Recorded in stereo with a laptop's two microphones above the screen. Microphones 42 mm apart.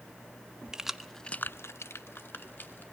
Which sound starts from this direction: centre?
Keys jangling, at 0.7 s.